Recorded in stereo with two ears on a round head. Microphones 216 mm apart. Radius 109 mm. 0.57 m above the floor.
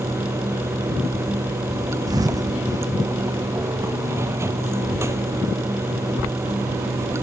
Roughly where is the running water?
Centre.